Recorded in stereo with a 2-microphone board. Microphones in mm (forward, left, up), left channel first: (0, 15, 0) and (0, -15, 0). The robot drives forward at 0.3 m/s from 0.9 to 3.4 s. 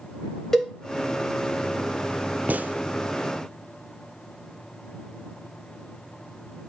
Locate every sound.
0.5 s a cowbell: 10° left (ahead or behind), 1.3 m
2.5 s a gunshot: 65° right (ahead or behind), 0.5 m; by 2.8 s 60° right (ahead or behind), 0.5 m